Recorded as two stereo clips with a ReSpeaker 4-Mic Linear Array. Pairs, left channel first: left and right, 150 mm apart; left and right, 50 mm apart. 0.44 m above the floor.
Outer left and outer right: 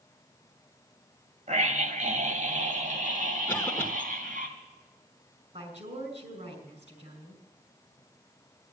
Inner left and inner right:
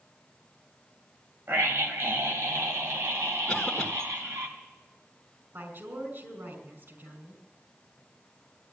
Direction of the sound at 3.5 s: 15° left (ahead or behind).